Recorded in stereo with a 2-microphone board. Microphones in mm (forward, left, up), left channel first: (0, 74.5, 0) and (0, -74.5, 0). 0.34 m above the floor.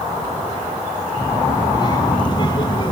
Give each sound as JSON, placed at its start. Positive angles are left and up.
{"t": 1.2, "sound": "a child speaking", "side_deg": 30, "distance_m": 6.0}